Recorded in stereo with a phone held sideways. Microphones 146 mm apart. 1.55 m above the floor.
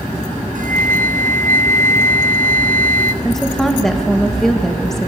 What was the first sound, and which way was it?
A flute, 65° right (ahead or behind).